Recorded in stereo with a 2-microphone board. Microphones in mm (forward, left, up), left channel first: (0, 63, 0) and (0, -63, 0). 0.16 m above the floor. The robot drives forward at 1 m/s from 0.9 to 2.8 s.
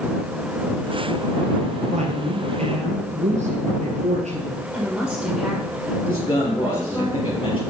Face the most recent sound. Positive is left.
turn(degrees=40)  # may be behind; listen again after turning